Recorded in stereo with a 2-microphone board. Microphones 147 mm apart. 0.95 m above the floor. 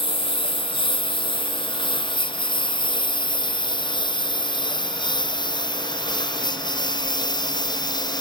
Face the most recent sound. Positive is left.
turn(degrees=30)  # may be behind; listen again after turning